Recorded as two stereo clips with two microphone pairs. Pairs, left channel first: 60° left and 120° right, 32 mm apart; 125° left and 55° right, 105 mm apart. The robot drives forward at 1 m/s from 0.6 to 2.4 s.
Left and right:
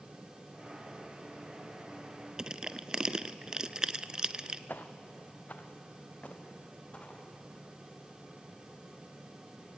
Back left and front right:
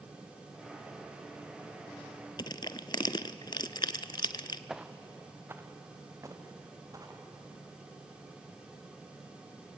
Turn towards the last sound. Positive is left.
turn(degrees=5)